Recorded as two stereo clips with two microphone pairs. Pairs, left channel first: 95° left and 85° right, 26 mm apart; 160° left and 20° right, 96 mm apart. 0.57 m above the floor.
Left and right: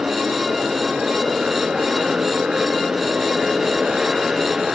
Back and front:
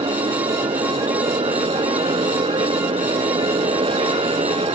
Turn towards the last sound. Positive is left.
turn(degrees=-20)